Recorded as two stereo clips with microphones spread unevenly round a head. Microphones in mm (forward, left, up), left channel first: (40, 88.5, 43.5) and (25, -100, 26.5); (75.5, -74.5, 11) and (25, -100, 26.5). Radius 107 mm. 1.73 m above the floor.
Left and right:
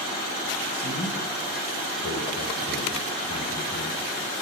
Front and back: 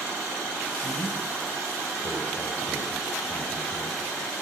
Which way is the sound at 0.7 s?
105° left.